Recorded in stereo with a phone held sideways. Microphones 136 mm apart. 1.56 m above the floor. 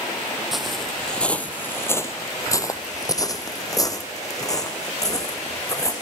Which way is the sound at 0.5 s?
Centre (ahead or behind).